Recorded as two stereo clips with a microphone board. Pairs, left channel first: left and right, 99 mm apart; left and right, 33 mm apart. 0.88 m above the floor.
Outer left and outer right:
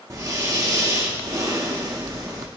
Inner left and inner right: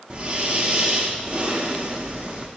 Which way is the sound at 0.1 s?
30° right (ahead or behind).